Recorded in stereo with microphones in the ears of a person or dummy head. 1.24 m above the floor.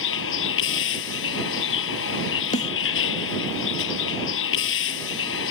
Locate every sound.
0.0 s a vehicle: 65° left (ahead or behind)
2.5 s a snare drum: 35° left (ahead or behind)